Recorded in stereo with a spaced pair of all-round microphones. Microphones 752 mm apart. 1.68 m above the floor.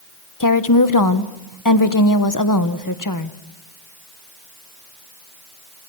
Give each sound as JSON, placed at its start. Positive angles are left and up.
{"t": 0.4, "sound": "a woman speaking", "side_deg": 25, "distance_m": 1.2}